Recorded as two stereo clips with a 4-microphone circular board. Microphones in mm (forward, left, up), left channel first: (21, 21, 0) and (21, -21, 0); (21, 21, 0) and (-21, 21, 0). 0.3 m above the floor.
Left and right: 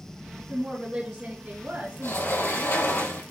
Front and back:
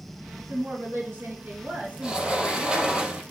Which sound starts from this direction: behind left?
A sliding door, at 2.0 s.